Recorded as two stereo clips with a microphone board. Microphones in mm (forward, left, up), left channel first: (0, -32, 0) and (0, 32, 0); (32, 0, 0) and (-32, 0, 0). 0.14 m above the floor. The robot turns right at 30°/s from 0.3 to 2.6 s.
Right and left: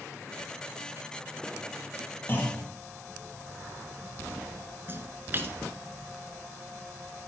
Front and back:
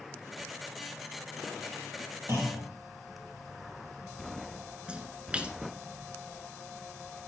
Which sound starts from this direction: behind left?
A splash, at 4.9 s.